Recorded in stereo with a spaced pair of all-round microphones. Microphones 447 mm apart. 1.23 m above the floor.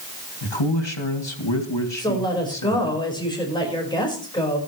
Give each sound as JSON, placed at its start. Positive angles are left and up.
{"t": 0.4, "sound": "a man speaking", "side_deg": 75, "distance_m": 2.5}
{"t": 2.0, "sound": "a woman speaking", "side_deg": 10, "distance_m": 5.0}